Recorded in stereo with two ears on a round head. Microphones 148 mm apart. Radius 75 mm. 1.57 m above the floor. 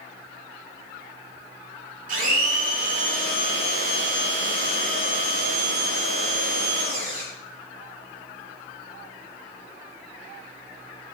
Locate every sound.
2.1 s a blender: 50° right (ahead or behind), 6 m